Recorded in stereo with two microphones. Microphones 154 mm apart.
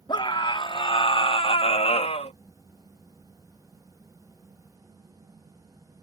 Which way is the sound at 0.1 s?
30° left (ahead or behind).